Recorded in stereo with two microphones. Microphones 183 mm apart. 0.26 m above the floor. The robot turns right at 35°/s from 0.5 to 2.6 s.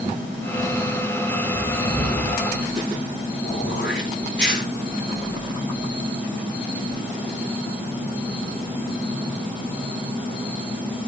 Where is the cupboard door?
5° right (ahead or behind), 8.5 m; by 2.4 s 25° left (ahead or behind), 8.5 m.